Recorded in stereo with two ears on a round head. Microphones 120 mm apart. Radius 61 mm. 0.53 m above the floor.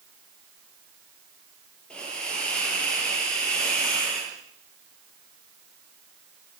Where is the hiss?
5° left (ahead or behind), 8 m.